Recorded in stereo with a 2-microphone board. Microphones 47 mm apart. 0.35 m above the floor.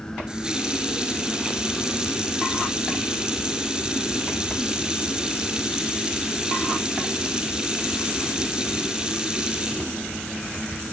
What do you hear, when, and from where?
0.3 s a running tap: 15° right (ahead or behind), 4.5 m